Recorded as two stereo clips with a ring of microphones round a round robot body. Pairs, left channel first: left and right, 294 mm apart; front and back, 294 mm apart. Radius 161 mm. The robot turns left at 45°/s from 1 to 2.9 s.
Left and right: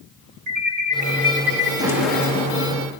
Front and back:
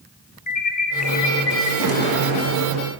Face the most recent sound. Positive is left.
turn(degrees=145)